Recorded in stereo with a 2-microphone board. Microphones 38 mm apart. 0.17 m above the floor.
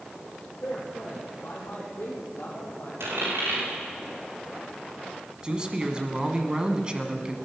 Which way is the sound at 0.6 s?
60° left (ahead or behind).